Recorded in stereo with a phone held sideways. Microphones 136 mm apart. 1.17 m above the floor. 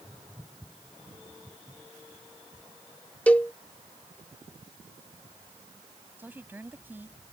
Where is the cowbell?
10° left (ahead or behind).